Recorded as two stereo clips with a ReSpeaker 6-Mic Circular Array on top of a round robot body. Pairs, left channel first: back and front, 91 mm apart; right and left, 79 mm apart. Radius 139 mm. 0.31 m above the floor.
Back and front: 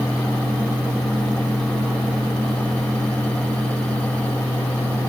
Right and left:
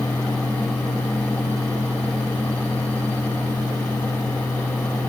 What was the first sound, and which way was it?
Only background noise.